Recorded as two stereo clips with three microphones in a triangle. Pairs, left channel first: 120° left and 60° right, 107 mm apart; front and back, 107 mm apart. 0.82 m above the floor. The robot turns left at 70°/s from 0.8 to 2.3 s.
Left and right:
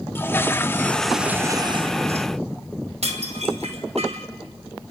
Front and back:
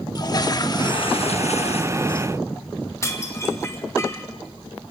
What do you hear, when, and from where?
0.1 s a toilet flushing: 50° left, 0.8 m; by 2.3 s 55° right, 0.8 m
3.0 s dishes clattering: 65° right, 2.5 m